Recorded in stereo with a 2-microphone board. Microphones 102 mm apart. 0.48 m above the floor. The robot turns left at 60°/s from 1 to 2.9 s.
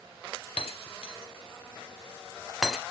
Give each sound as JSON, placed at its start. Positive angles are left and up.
{"t": 0.6, "sound": "breaking glass", "side_deg": 75, "distance_m": 0.7}